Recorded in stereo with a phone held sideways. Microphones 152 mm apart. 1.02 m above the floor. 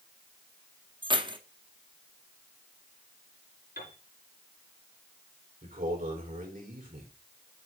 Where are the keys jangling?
30° right (ahead or behind), 0.9 m.